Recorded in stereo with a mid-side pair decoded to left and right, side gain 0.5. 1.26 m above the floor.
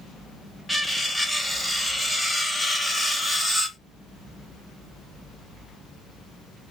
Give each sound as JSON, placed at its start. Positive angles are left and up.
{"t": 0.7, "sound": "cutlery clinking", "azimuth_deg": 5, "distance_m": 1.3}